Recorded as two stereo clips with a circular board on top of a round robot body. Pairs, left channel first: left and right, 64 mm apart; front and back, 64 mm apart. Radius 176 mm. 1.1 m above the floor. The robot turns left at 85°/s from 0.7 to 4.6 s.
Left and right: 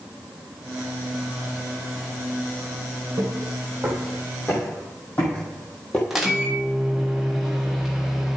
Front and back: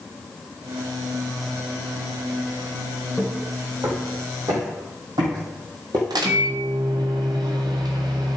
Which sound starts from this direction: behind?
A microwave, at 6.1 s.